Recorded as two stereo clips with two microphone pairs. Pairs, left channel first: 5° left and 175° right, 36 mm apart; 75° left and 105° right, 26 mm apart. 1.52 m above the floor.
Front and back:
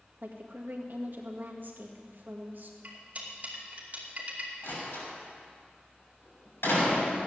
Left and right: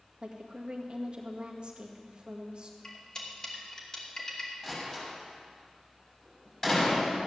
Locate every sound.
0.2 s a woman speaking: 145° right, 1.9 m
2.8 s cutlery clinking: 135° left, 2.5 m
4.6 s a door slam: 5° left, 6.5 m